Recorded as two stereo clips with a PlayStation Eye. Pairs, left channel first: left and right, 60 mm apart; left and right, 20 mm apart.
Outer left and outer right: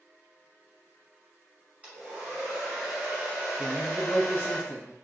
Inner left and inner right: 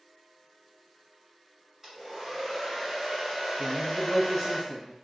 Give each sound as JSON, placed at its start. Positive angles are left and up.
{"t": 1.8, "sound": "a hair dryer", "side_deg": -20, "distance_m": 1.6}
{"t": 3.6, "sound": "a man speaking", "side_deg": 30, "distance_m": 1.4}